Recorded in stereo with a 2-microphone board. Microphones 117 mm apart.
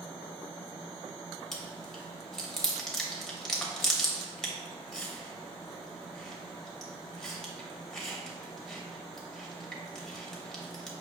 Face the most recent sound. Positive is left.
turn(degrees=5)  # may be behind; listen again after turning